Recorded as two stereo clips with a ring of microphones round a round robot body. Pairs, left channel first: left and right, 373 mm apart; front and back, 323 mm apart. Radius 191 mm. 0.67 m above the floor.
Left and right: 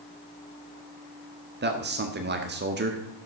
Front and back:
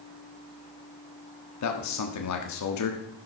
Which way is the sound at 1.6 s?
30° right.